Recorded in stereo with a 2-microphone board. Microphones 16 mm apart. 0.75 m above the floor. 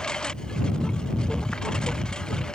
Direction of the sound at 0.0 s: 50° left (ahead or behind).